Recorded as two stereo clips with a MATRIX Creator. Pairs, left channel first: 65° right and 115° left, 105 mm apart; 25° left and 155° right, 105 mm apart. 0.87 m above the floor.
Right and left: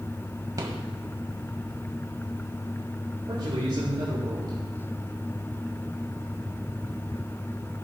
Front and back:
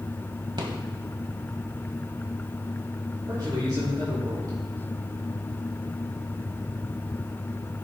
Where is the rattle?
165° left, 1.8 m.